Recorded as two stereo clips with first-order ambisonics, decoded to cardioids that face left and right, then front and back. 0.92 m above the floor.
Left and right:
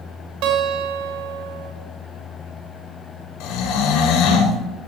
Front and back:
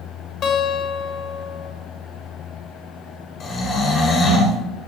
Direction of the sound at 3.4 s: 65° left.